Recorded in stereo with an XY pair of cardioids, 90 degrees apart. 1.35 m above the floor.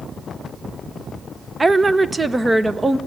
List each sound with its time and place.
1.6 s a woman speaking: 25° right, 0.9 m; by 3.0 s 20° right, 1.7 m